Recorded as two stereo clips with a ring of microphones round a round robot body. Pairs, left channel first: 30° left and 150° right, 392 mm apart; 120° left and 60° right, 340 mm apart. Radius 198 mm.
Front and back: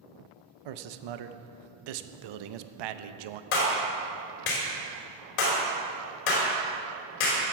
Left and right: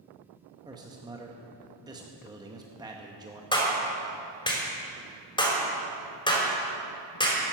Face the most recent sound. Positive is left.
turn(degrees=45)